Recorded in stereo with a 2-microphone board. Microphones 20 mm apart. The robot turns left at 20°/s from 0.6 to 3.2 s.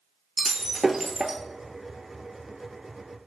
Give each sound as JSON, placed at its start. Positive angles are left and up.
{"t": 0.4, "sound": "breaking glass", "side_deg": -20, "distance_m": 0.6}